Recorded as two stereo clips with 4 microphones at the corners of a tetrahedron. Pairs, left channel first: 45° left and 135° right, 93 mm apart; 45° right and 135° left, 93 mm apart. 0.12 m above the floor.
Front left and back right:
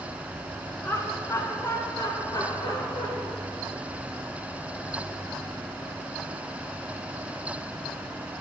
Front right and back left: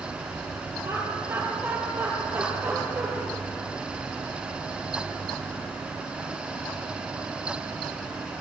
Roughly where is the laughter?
Left.